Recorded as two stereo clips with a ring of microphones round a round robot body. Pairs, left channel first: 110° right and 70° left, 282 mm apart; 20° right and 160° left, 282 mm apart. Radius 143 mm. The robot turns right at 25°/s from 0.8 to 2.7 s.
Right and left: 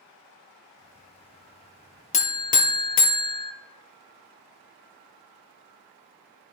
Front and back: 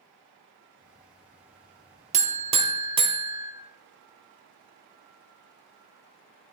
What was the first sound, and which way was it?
A buzzer, 160° right.